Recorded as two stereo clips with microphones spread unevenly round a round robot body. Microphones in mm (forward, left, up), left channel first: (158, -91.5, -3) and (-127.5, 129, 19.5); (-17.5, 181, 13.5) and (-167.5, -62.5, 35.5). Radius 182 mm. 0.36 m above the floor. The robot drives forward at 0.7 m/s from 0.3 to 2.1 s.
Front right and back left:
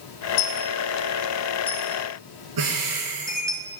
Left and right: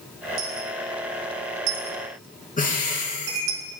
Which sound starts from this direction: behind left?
Breathing, at 2.6 s.